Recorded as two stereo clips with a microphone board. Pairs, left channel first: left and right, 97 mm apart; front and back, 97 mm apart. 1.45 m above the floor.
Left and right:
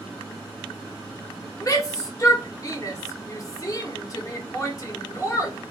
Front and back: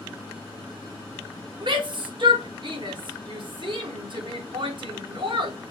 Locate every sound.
1.6 s a shout: 145° left, 1.0 m